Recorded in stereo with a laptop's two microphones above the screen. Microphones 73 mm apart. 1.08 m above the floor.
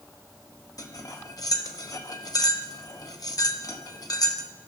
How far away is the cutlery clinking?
About 0.7 m.